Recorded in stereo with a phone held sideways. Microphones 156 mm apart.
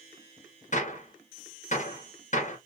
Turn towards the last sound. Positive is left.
turn(degrees=50)  # may be behind; listen again after turning